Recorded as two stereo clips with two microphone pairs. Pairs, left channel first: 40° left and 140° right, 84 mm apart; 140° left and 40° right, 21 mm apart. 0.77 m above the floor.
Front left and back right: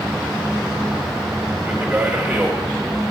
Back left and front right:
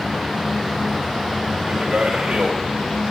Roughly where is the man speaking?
Ahead right.